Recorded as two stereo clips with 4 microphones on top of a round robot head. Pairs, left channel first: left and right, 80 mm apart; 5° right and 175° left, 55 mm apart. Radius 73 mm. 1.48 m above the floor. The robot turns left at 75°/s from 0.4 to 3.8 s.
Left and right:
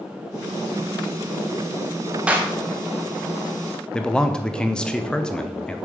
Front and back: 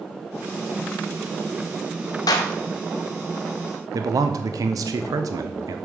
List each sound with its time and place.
2.3 s a clap: 10° right, 0.9 m; by 2.5 s 25° right, 0.9 m
3.9 s a man speaking: 170° left, 0.7 m